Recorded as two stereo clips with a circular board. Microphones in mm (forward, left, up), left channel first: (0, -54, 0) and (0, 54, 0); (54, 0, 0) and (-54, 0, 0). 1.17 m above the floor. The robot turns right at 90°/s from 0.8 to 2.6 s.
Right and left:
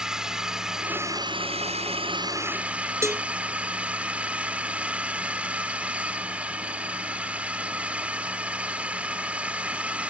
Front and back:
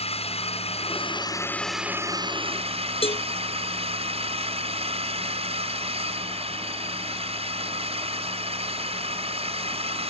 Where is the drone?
5° left; by 10.1 s 170° left.